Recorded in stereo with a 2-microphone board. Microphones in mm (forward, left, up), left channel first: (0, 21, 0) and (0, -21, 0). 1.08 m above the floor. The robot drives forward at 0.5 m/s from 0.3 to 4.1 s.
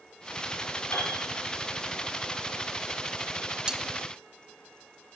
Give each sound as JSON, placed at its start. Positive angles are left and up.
{"t": 0.9, "sound": "a piano", "side_deg": 80, "distance_m": 8.5}
{"t": 3.7, "sound": "cutlery clinking", "side_deg": -20, "distance_m": 0.8}